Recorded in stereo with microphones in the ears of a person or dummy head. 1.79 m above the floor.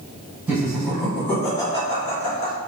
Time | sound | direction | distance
0.5 | laughter | 15° right (ahead or behind) | 1.7 m